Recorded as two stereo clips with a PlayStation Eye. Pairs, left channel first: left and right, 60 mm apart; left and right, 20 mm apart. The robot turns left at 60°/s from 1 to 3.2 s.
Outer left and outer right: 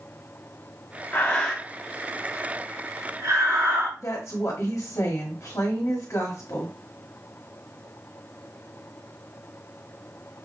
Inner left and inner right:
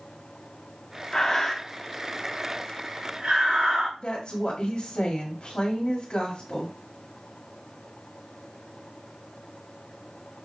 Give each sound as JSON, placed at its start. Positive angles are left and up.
{"t": 1.1, "sound": "breathing", "side_deg": 35, "distance_m": 1.6}
{"t": 4.0, "sound": "a woman speaking", "side_deg": 55, "distance_m": 1.8}